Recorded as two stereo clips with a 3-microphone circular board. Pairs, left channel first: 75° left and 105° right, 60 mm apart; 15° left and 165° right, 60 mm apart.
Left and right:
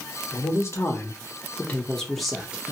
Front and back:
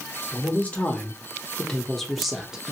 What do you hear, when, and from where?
0.3 s a man speaking: 75° left, 1.3 m; by 2.7 s 115° right, 0.8 m